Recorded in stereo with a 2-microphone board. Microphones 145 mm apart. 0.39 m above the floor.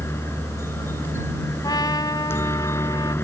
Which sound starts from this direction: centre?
A helicopter, at 0.0 s.